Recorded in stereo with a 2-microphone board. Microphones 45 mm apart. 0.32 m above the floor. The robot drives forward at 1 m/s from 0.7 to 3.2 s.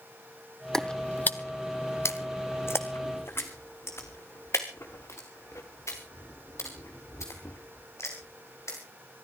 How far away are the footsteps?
About 0.9 m.